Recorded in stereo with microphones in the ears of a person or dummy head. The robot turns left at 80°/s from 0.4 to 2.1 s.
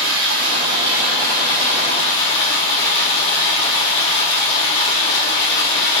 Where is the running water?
115° right, 0.9 m; by 6.0 s 110° left, 0.9 m.